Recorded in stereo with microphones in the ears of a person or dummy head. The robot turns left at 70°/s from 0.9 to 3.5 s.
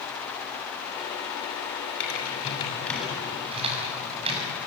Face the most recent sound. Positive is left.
turn(degrees=-35)  # may be behind; listen again after turning